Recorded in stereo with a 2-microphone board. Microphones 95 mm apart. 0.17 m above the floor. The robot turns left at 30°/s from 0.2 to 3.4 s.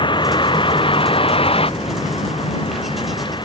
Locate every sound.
0.0 s a vehicle: 60° left (ahead or behind); by 3.5 s 55° left (ahead or behind)